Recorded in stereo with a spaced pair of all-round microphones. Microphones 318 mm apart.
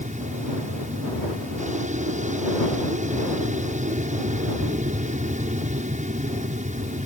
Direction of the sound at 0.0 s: 20° right (ahead or behind).